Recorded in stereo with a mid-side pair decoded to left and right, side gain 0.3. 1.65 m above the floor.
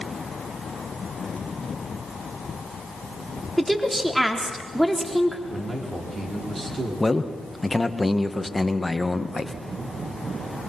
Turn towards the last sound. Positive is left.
turn(degrees=20)